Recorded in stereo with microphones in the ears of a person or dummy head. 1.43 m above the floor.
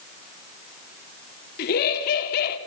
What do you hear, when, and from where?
1.6 s laughter: 55° left (ahead or behind), 3.5 m